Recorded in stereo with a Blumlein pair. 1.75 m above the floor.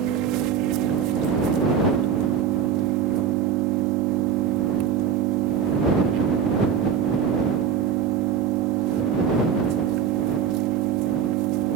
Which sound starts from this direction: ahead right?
An engine running, at 0.0 s.